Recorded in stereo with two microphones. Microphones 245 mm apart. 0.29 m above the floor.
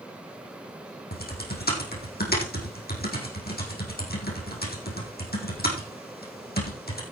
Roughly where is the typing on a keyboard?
Left.